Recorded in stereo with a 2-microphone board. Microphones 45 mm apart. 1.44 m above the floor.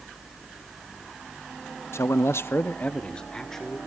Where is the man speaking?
75° left (ahead or behind), 0.7 m; by 3.8 s 10° left (ahead or behind), 1.6 m.